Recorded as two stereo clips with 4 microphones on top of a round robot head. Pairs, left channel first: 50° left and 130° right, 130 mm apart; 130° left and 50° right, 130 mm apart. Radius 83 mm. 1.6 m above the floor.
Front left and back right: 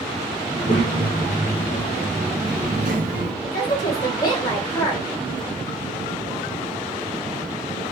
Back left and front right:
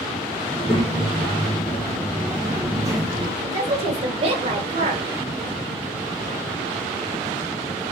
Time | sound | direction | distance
0.5 | a child speaking | 80° left | 1.8 m
3.4 | a woman speaking | 10° right | 1.5 m